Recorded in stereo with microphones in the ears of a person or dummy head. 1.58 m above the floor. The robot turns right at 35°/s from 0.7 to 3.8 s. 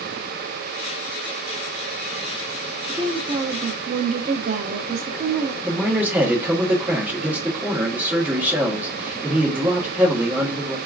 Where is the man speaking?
5° right (ahead or behind), 1.4 m.